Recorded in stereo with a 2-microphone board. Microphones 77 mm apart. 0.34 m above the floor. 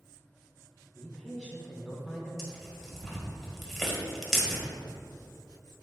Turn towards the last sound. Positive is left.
turn(degrees=0)  # may be behind; listen again after turning